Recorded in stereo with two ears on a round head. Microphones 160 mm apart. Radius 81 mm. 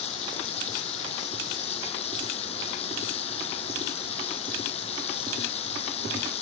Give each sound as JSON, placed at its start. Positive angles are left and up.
{"t": 0.0, "sound": "running water", "side_deg": 35}